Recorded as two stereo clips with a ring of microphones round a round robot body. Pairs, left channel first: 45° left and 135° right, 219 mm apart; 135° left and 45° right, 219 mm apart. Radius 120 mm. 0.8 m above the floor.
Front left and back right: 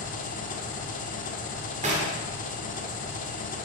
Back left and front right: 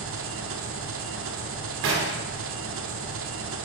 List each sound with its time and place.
0.0 s an engine running: 10° right, 1.2 m
1.8 s knocking: 75° right, 2.5 m